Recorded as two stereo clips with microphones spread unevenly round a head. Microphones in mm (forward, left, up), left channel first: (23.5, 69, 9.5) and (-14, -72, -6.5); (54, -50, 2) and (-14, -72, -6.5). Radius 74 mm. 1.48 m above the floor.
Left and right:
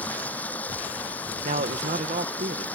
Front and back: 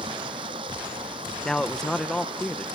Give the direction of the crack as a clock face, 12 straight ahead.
No crack in this recording.